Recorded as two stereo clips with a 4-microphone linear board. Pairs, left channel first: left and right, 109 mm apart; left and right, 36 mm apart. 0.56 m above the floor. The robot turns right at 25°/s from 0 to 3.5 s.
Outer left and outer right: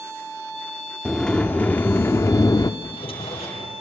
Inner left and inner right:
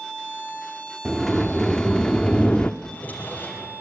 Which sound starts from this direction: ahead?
A sliding door, at 1.1 s.